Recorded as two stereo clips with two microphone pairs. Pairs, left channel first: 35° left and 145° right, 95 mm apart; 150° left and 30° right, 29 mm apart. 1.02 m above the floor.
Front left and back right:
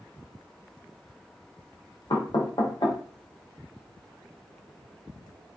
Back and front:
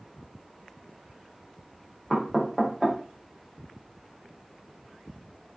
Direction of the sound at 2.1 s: 60° left.